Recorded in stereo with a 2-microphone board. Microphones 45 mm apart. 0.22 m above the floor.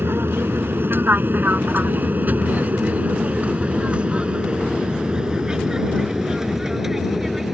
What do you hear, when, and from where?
0.0 s an aircraft: 55° right (ahead or behind); by 7.5 s centre (ahead or behind)